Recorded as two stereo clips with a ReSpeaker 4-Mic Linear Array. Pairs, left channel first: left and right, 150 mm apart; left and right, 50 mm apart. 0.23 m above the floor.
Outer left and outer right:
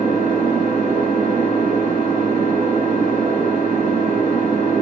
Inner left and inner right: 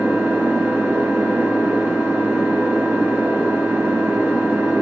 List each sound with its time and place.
0.0 s an engine running: 60° right (ahead or behind), 0.9 m